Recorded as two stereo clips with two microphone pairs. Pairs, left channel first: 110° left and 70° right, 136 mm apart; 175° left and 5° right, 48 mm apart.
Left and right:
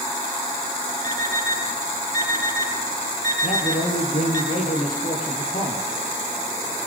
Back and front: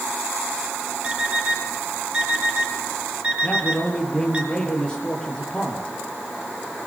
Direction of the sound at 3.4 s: 100° left.